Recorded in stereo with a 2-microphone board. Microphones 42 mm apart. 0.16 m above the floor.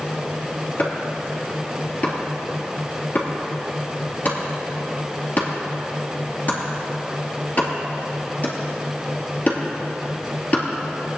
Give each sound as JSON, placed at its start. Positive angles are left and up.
{"t": 0.8, "sound": "chopping", "side_deg": 40, "distance_m": 3.0}